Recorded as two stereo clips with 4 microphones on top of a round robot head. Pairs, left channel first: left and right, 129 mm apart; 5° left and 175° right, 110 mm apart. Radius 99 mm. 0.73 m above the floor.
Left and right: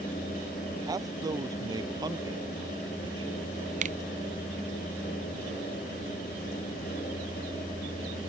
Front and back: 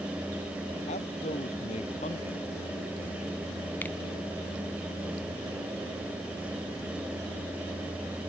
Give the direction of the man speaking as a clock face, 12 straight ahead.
1 o'clock.